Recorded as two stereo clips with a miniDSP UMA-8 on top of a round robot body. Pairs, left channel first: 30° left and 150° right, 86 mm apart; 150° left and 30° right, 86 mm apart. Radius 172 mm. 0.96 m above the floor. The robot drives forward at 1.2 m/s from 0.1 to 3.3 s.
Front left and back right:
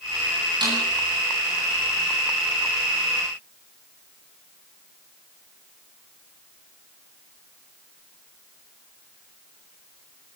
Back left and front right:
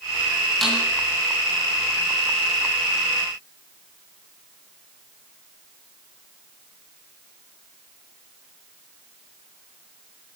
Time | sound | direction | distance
0.6 | a snare drum | 125° right | 9 m